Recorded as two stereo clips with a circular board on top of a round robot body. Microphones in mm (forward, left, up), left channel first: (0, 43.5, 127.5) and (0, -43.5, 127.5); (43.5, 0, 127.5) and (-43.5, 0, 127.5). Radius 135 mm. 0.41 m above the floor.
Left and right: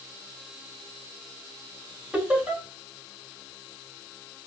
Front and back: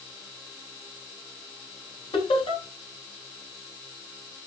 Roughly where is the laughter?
Ahead.